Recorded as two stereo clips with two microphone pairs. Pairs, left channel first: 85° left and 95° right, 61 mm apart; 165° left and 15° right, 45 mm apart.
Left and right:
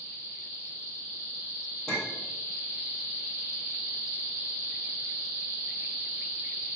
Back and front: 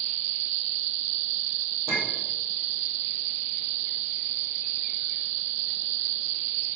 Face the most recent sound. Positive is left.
turn(degrees=5)